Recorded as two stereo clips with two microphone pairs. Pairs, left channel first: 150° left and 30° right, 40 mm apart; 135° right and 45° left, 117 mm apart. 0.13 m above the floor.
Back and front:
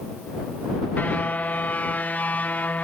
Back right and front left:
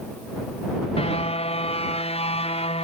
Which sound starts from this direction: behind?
A car horn, at 1.0 s.